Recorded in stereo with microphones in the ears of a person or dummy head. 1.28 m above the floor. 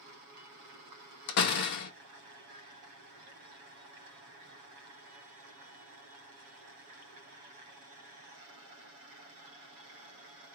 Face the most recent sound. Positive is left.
turn(degrees=55)  # may be behind; listen again after turning